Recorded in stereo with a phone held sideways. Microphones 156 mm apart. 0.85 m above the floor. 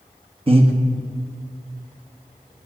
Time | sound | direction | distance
0.5 | breathing | 35° right (ahead or behind) | 1.5 m